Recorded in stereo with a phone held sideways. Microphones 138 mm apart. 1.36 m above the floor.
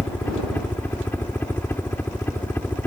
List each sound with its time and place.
0.0 s a helicopter: 15° left (ahead or behind)